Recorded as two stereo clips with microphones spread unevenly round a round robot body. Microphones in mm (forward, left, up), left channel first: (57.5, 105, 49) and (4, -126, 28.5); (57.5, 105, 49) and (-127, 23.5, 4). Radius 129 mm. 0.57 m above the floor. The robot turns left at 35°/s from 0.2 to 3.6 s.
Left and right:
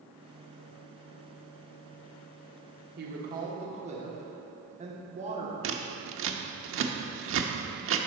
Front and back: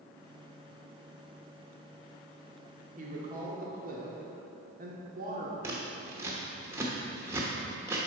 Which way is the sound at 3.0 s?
130° right.